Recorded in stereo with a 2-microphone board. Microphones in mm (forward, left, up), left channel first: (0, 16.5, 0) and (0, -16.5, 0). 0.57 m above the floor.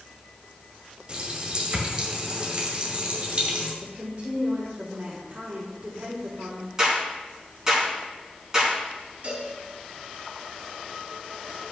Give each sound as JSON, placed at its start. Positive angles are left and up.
{"t": 1.1, "sound": "a running tap", "side_deg": -30, "distance_m": 1.8}
{"t": 3.8, "sound": "a woman speaking", "side_deg": -45, "distance_m": 1.8}
{"t": 6.8, "sound": "a clap", "side_deg": -20, "distance_m": 4.0}
{"t": 9.2, "sound": "a cowbell", "side_deg": -40, "distance_m": 3.0}